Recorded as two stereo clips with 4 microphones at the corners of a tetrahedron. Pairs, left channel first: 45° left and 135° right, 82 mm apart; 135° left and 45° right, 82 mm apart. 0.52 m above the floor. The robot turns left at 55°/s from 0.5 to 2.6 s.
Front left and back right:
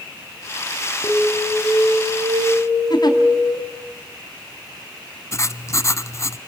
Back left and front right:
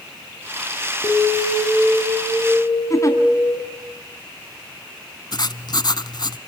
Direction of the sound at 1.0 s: 15° right.